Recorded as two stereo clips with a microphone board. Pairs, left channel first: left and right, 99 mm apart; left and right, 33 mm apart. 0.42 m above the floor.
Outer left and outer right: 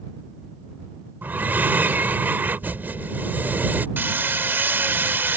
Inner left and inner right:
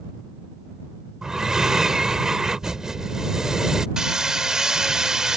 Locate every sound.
1.2 s breathing: 20° right (ahead or behind)
4.0 s hammering: 20° right (ahead or behind)